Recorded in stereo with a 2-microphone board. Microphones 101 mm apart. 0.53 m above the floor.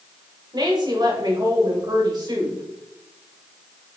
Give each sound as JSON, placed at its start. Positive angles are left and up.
{"t": 0.5, "sound": "a woman speaking", "side_deg": -45, "distance_m": 1.9}